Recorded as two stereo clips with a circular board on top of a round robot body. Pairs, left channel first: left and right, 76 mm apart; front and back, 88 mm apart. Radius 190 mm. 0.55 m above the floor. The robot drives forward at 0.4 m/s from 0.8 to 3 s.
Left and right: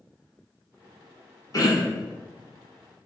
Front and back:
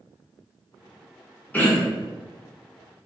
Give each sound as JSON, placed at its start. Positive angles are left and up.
{"t": 1.5, "sound": "throat clearing", "azimuth_deg": 65, "distance_m": 1.1}